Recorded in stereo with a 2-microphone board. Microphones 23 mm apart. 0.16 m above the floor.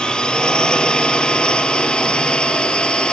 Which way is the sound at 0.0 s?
45° left (ahead or behind).